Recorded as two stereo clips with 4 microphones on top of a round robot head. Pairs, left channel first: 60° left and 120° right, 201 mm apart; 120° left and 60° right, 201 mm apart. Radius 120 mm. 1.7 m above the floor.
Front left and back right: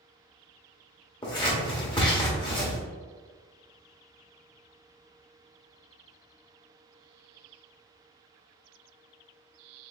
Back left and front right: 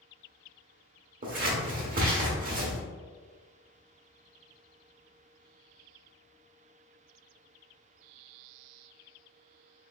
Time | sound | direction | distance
1.2 | scissors | 10° right | 1.3 m